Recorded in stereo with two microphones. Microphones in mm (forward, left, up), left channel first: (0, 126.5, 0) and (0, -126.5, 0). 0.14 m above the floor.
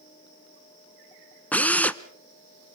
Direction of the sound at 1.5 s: 5° left (ahead or behind).